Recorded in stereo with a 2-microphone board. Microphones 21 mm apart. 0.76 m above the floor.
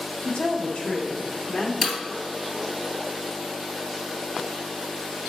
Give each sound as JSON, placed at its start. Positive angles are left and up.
{"t": 0.2, "sound": "a woman speaking", "side_deg": 60, "distance_m": 1.2}
{"t": 1.8, "sound": "breaking glass", "side_deg": -5, "distance_m": 2.5}